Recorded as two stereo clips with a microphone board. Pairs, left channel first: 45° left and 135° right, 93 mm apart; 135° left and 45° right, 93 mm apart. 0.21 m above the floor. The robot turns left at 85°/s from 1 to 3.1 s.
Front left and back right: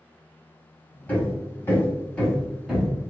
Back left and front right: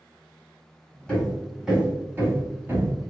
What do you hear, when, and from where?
1.1 s hammering: 80° left, 1.0 m; by 2.9 s 75° right, 1.0 m